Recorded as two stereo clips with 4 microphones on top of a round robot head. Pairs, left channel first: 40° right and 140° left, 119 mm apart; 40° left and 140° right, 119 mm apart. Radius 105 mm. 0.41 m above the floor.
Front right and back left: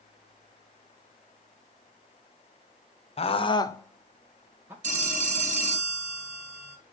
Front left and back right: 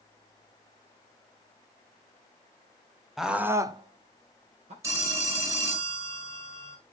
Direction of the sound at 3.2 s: 50° right.